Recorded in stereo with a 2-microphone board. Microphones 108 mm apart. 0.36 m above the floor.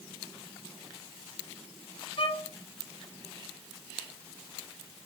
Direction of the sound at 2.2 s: 60° left (ahead or behind).